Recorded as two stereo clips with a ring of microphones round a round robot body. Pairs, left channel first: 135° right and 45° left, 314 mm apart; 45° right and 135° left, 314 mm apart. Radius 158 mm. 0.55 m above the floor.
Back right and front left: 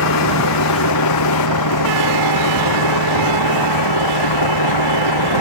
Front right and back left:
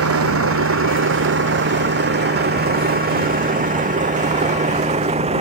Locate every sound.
0.0 s a vehicle: 175° right; by 5.4 s 155° right